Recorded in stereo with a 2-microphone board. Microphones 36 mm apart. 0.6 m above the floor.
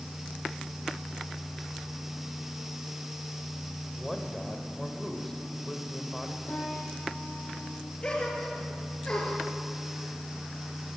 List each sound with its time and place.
3.9 s a man speaking: 10° left (ahead or behind), 3 m
6.5 s a piano: 85° left, 6 m
8.0 s a gasp: 30° left (ahead or behind), 4.5 m